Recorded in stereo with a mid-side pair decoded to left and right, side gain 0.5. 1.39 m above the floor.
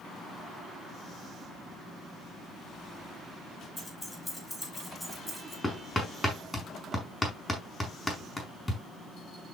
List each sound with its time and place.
3.8 s keys jangling: 10° left, 5 m; by 5.5 s straight ahead, 6 m
5.6 s hammering: 5° left, 5.5 m